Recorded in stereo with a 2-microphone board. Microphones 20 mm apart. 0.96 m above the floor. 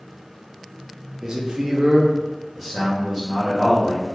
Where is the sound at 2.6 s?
5° left (ahead or behind), 1.1 m.